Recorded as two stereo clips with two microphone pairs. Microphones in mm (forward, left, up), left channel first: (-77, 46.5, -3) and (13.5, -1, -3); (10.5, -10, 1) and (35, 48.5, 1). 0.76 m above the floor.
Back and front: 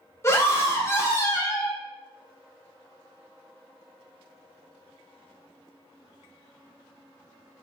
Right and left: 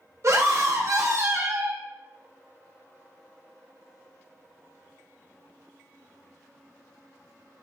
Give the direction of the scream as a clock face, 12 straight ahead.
9 o'clock.